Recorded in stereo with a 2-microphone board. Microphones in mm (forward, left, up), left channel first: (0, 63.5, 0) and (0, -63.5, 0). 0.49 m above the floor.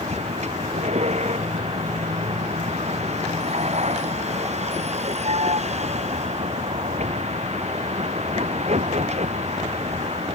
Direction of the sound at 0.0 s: 60° right (ahead or behind).